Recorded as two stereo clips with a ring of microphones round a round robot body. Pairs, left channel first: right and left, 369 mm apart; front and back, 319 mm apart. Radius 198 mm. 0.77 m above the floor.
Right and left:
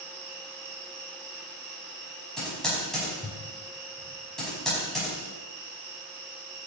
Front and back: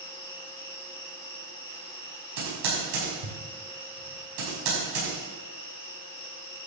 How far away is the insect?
About 4.5 m.